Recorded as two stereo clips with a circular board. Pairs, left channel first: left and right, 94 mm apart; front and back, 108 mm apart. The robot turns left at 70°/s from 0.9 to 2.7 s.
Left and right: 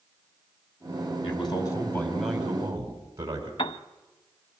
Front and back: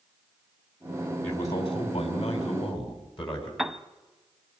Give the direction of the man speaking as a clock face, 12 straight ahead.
10 o'clock.